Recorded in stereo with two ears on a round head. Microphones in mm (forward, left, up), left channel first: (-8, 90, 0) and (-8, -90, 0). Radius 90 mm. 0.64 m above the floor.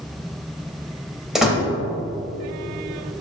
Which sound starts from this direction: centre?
A door slam, at 1.4 s.